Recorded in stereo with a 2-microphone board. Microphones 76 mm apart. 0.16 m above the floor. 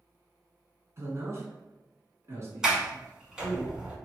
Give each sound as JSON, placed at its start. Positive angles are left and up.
{"t": 1.0, "sound": "a man speaking", "side_deg": -40, "distance_m": 1.4}
{"t": 2.6, "sound": "a sliding door", "side_deg": -10, "distance_m": 1.0}